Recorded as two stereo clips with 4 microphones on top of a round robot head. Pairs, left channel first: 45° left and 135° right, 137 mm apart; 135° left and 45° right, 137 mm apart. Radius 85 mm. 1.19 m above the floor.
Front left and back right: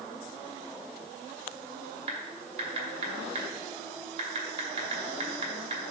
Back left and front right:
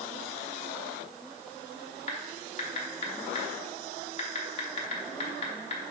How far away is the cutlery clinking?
No cutlery clinking in this recording.